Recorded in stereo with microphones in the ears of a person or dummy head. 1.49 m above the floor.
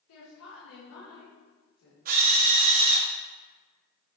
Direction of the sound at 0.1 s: 85° left.